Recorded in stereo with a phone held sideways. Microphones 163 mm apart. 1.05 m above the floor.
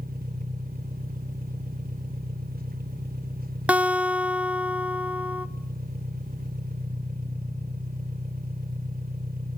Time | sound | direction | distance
0.0 | an engine running | 60° right (ahead or behind) | 2.5 m
3.7 | a guitar | 10° right (ahead or behind) | 0.8 m